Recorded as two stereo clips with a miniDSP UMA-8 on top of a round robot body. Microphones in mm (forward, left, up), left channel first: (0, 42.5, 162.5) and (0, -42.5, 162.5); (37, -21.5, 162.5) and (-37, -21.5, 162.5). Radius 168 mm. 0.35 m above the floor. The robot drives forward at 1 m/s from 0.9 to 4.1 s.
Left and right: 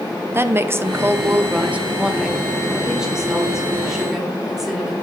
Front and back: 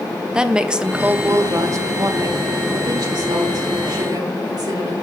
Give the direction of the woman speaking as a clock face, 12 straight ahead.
4 o'clock.